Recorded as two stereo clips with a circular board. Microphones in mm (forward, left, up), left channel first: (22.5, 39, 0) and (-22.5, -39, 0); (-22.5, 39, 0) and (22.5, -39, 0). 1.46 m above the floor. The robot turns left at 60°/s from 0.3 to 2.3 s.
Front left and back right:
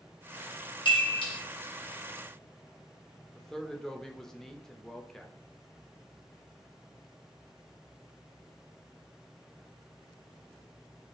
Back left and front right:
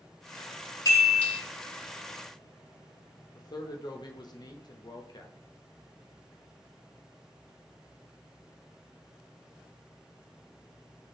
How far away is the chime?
About 1.2 m.